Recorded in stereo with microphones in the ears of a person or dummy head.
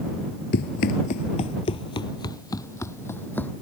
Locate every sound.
0.5 s running footsteps: 45° left (ahead or behind); by 3.5 s 10° left (ahead or behind)